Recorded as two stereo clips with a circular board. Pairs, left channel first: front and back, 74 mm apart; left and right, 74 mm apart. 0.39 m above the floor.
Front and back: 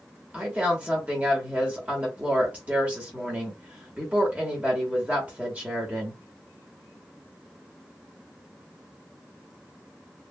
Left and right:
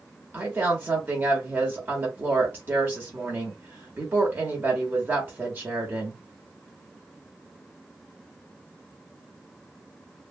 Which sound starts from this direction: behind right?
A woman speaking, at 0.3 s.